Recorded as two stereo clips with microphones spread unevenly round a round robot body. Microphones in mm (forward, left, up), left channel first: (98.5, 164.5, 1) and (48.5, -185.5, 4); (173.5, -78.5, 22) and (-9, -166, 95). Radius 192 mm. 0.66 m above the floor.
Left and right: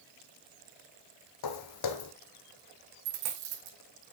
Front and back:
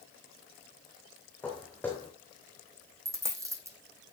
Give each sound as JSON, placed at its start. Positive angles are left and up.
{"t": 1.4, "sound": "footsteps", "azimuth_deg": 120, "distance_m": 1.4}
{"t": 3.0, "sound": "a dropped coin", "azimuth_deg": -80, "distance_m": 4.5}